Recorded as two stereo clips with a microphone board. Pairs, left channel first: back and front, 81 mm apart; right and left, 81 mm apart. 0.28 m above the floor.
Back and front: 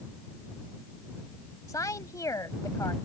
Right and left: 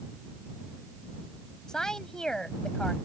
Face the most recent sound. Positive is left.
turn(degrees=-170)